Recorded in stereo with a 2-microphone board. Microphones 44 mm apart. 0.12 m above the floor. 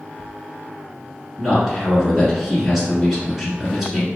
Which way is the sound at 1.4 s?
5° right (ahead or behind).